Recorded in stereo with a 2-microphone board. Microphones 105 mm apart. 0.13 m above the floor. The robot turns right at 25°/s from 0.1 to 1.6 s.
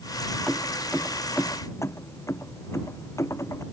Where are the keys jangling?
Centre (ahead or behind); by 3.6 s 30° left (ahead or behind).